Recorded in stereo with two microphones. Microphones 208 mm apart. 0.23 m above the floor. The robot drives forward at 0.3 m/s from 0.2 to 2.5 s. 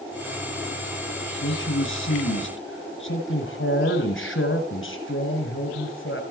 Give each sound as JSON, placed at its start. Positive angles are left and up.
{"t": 1.4, "sound": "a man speaking", "side_deg": 70, "distance_m": 3.0}